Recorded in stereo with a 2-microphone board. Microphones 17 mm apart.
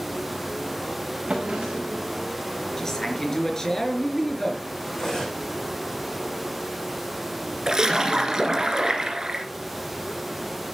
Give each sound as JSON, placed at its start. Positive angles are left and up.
{"t": 1.3, "sound": "a drawer", "side_deg": -60, "distance_m": 6.0}
{"t": 2.8, "sound": "a man speaking", "side_deg": 25, "distance_m": 4.0}
{"t": 4.9, "sound": "cutlery clinking", "side_deg": 35, "distance_m": 7.5}
{"t": 7.7, "sound": "a splash", "side_deg": -40, "distance_m": 2.5}